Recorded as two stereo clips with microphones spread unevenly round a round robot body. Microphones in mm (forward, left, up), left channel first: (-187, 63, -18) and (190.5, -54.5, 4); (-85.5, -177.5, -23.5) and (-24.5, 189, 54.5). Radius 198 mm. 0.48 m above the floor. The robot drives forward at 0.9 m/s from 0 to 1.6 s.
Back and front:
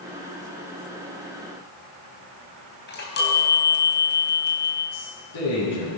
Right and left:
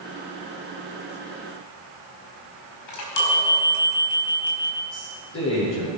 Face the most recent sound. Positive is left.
turn(degrees=-155)